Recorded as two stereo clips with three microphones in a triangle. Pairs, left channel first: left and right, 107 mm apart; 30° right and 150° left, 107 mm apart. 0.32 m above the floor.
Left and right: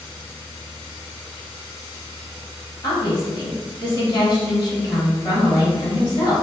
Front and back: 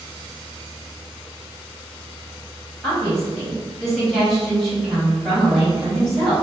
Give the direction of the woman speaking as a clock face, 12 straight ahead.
10 o'clock.